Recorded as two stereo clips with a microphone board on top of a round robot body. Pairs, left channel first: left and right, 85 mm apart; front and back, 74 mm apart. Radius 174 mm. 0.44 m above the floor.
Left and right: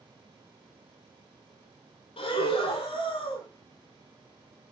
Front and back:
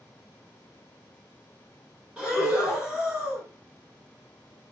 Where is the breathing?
100° left, 0.8 m.